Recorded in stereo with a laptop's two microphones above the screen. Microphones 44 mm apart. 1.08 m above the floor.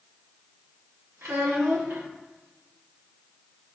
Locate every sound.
1.2 s a child speaking: 80° right, 0.9 m